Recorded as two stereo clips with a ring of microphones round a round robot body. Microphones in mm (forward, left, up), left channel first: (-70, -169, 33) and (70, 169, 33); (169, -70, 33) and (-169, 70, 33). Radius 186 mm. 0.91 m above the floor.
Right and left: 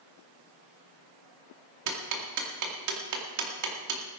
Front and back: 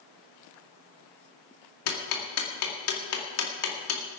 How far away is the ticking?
About 2 m.